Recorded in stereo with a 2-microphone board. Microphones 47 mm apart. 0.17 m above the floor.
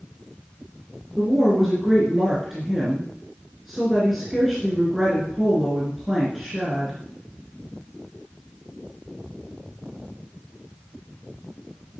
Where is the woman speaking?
5° right (ahead or behind), 2.5 m.